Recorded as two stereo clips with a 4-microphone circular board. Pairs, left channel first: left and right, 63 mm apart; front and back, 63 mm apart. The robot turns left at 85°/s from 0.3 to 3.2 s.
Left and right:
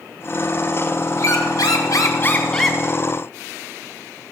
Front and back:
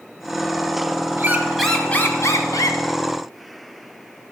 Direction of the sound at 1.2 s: 130° left.